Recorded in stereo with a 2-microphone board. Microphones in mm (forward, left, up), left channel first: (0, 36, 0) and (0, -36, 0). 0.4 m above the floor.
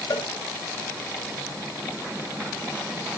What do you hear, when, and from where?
0.1 s a cowbell: 70° left (ahead or behind), 1.7 m